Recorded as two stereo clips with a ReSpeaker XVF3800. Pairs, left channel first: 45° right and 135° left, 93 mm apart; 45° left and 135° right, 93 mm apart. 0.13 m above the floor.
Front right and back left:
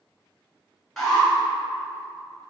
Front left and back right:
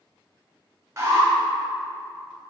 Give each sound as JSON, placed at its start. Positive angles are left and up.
{"t": 1.0, "sound": "an alarm", "azimuth_deg": -125, "distance_m": 1.1}